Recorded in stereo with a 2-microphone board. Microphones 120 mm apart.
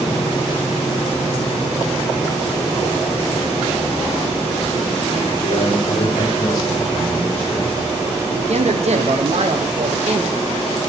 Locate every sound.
5.4 s a man speaking: 55° left (ahead or behind), 3.5 m; by 8.2 s 5° left (ahead or behind), 4 m
8.3 s a man speaking: 65° right (ahead or behind), 0.9 m